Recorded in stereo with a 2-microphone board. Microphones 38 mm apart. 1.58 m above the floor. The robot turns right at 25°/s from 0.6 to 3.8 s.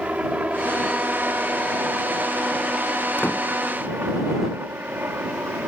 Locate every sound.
0.0 s a helicopter: 40° right (ahead or behind); by 5.7 s 65° right (ahead or behind)
3.2 s a door slam: 60° left (ahead or behind); by 3.5 s 55° left (ahead or behind)